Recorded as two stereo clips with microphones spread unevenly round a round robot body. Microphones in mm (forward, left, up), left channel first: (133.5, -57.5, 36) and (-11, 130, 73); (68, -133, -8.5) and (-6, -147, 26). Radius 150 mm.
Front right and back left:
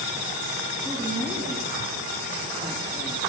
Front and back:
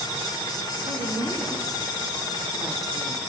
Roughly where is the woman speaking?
Behind right.